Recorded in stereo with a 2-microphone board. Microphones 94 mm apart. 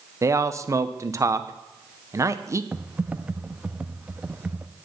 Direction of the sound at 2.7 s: 15° right (ahead or behind).